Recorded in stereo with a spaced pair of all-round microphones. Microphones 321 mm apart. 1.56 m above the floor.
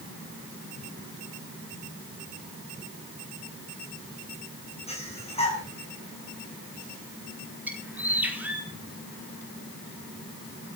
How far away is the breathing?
About 10 m.